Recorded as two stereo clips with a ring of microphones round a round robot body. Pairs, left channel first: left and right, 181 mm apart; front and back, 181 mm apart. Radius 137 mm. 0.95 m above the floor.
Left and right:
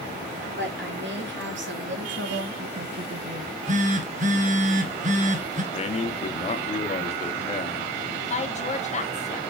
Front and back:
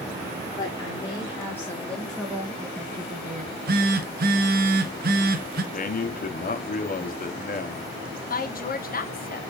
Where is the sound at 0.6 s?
75° right, 3.5 m; by 3.5 s 150° right, 1.1 m.